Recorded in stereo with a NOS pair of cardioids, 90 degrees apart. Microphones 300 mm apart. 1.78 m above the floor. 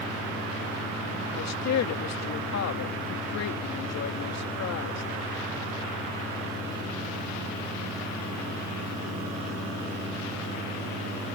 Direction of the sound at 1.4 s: 60° left.